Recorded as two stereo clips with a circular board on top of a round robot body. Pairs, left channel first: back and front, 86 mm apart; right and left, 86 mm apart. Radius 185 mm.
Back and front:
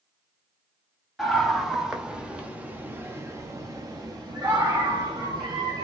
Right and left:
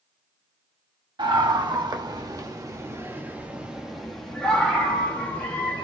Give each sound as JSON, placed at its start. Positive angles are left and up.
{"t": 1.2, "sound": "a scream", "azimuth_deg": 90, "distance_m": 1.7}